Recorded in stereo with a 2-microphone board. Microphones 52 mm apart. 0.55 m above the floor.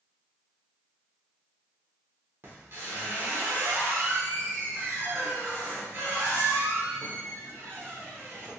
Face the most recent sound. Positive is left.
turn(degrees=-50)  # may be behind; listen again after turning